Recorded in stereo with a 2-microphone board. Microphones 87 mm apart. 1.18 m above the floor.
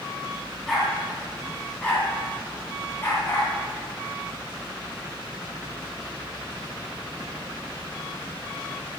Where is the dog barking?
Centre (ahead or behind), 4.5 m; by 3.5 s 25° left (ahead or behind), 5 m.